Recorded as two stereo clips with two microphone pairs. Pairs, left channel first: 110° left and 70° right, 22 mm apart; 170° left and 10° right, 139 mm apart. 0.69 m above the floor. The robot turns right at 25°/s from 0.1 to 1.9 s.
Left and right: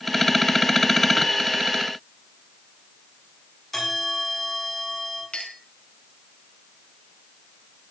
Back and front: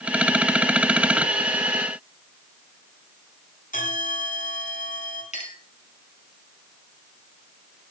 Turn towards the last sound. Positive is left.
turn(degrees=140)